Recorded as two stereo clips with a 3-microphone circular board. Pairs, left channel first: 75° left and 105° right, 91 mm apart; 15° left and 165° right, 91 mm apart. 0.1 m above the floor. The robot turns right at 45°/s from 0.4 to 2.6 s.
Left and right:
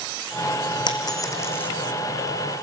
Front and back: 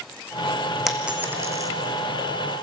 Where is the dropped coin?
105° left, 1.8 m; by 1.7 s 145° left, 1.8 m.